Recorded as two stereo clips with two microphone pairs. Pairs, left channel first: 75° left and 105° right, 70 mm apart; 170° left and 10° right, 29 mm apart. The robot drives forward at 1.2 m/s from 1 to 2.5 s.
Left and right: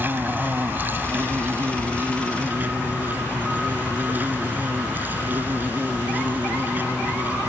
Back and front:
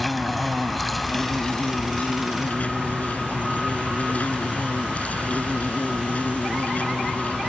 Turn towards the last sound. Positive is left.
turn(degrees=-165)